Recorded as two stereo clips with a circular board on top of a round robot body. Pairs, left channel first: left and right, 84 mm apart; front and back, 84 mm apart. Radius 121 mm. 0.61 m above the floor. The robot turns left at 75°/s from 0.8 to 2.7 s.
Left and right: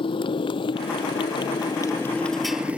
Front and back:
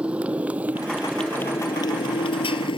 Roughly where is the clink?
No clink in this recording.